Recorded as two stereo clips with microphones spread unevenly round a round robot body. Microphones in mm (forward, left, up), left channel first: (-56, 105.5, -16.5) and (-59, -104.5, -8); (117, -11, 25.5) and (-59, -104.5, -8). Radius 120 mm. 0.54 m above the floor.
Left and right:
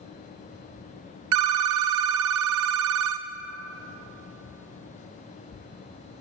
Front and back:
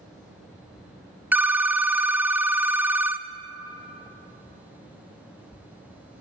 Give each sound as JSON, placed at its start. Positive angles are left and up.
{"t": 1.3, "sound": "a phone ringing", "azimuth_deg": -75, "distance_m": 0.6}